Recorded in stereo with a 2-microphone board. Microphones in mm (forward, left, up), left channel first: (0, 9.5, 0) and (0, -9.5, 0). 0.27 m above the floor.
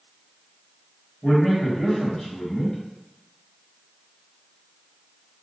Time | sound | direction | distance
1.2 | a man speaking | 35° left (ahead or behind) | 1.5 m